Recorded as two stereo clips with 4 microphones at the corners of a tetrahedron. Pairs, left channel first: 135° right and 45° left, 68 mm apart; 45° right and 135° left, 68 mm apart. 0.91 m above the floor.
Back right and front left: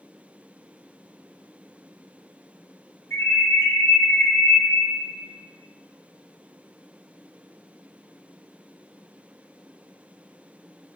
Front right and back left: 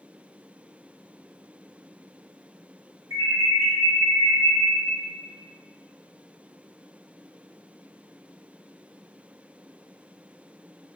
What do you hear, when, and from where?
3.1 s an alarm: 175° right, 2.0 m